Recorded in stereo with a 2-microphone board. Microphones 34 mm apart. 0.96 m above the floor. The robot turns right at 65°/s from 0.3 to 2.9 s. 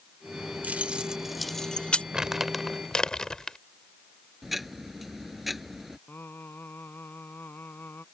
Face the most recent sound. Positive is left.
turn(degrees=75)  # may be behind; listen again after turning